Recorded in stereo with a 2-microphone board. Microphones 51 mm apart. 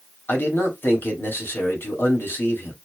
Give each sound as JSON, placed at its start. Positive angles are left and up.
{"t": 0.3, "sound": "a man speaking", "side_deg": 45, "distance_m": 2.0}